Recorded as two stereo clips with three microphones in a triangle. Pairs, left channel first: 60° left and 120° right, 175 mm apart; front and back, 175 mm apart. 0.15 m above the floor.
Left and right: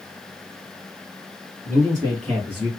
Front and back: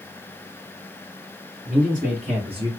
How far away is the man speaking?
About 2.5 m.